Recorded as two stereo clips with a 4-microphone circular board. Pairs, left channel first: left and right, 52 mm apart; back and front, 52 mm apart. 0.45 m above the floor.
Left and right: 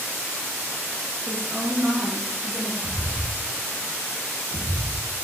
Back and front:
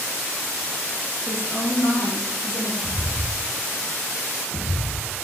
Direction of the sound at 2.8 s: 25° right.